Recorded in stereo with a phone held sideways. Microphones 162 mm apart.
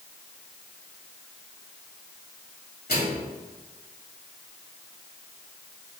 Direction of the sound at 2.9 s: 75° left (ahead or behind).